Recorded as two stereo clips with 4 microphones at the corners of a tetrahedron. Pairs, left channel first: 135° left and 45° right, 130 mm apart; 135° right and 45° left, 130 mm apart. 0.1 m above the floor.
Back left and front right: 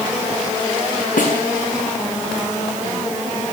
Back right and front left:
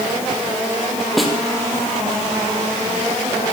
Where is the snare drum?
135° left, 5.5 m.